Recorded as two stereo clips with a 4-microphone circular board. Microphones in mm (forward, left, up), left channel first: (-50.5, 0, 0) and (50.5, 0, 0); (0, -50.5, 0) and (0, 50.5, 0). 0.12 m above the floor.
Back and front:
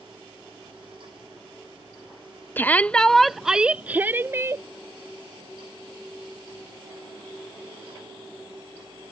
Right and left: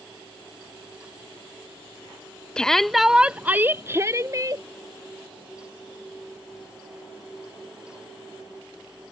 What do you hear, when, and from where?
2.6 s a shout: 155° right; by 4.6 s 50° left